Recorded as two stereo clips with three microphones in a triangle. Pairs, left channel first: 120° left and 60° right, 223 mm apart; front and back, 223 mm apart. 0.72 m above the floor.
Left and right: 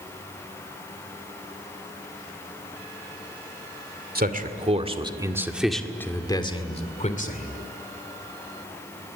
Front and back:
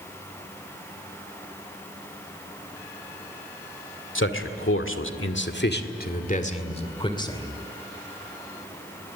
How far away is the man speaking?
About 2 m.